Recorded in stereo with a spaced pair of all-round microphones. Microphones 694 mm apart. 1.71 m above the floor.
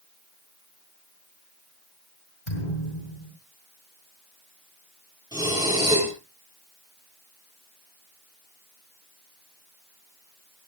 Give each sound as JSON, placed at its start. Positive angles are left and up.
{"t": 2.5, "sound": "a thud", "side_deg": 80, "distance_m": 6.5}
{"t": 5.3, "sound": "breathing", "side_deg": -5, "distance_m": 8.5}